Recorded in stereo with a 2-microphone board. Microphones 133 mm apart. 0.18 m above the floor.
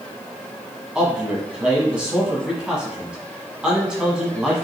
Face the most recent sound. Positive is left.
turn(degrees=-5)  # may be behind; listen again after turning